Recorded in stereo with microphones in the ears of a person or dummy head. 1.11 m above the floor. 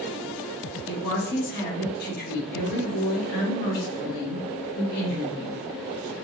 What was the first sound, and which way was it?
A woman speaking, 50° left (ahead or behind).